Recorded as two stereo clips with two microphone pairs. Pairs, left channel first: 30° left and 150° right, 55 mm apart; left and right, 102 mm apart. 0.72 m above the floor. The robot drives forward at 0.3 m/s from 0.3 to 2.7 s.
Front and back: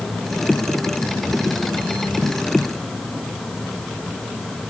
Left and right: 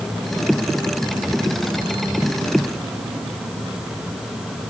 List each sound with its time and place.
Only background noise.